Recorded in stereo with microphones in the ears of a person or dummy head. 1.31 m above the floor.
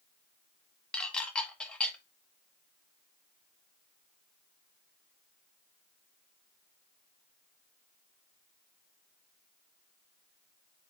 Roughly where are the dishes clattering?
Centre.